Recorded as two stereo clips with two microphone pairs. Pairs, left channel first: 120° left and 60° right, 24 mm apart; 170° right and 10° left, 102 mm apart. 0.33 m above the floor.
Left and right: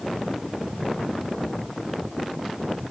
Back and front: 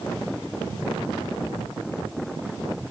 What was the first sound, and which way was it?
Only background noise.